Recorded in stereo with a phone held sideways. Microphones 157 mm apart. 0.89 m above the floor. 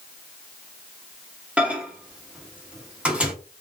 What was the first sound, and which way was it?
A microwave, 5° right (ahead or behind).